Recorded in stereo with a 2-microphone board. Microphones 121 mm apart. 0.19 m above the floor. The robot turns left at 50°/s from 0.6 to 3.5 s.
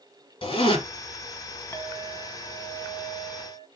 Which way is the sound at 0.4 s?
45° left (ahead or behind).